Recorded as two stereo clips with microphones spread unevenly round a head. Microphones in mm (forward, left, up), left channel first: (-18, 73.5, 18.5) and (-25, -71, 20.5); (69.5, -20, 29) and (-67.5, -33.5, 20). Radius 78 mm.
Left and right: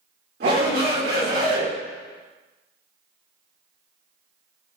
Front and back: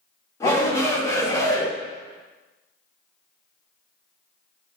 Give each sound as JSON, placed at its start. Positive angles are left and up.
{"t": 0.4, "sound": "a shout", "azimuth_deg": -60, "distance_m": 4.0}